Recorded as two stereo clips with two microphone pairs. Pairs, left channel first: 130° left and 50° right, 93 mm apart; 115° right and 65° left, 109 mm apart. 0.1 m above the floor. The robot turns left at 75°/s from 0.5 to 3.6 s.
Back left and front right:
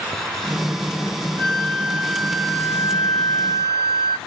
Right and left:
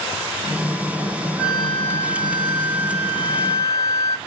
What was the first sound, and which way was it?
A flute, 10° right.